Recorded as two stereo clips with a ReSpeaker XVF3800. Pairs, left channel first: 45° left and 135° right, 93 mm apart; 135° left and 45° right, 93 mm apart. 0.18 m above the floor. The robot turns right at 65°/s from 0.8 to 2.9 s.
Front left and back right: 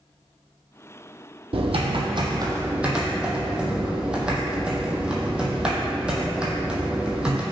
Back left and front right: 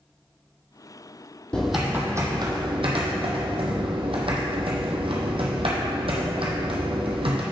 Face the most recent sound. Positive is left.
turn(degrees=-55)